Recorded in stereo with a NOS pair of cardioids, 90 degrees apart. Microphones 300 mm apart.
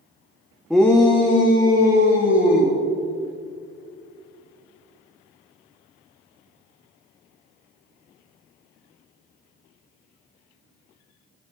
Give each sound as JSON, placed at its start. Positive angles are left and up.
{"t": 0.7, "sound": "a shout", "azimuth_deg": 0, "distance_m": 0.6}